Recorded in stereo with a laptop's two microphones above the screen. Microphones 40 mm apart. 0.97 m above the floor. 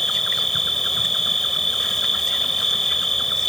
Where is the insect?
10° left (ahead or behind).